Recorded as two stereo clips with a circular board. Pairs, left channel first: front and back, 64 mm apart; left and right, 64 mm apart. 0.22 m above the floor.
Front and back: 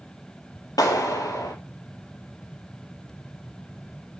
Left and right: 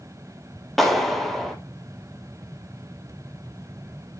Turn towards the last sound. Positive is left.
turn(degrees=5)